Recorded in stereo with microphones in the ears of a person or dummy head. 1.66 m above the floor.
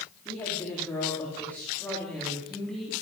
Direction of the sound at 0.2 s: 15° left (ahead or behind).